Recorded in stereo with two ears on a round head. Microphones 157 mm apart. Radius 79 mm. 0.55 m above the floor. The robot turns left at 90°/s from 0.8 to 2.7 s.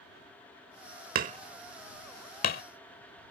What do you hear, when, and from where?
1.1 s hammering: 55° right (ahead or behind); by 2.6 s 70° left (ahead or behind)